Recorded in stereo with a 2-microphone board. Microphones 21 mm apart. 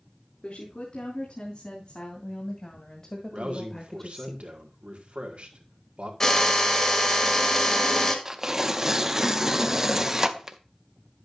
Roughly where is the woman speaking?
Left.